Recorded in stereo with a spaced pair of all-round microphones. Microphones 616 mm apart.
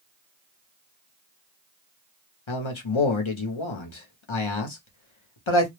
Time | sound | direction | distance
2.5 | a man speaking | 55° left (ahead or behind) | 0.8 m